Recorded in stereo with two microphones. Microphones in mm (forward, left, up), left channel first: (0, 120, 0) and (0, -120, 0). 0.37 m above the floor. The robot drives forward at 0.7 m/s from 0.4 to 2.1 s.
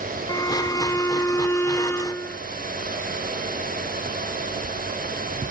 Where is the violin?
15° left (ahead or behind); by 2.4 s 10° left (ahead or behind).